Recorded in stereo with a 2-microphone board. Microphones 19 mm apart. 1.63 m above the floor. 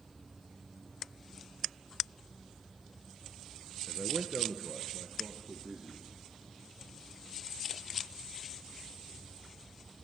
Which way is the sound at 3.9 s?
45° right (ahead or behind).